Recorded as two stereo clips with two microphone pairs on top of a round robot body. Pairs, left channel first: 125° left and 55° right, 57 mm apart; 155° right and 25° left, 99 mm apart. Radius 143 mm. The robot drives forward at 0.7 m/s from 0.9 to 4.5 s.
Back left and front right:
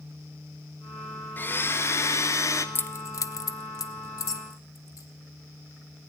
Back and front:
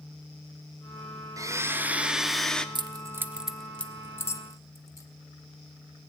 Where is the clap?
I don't hear a clap.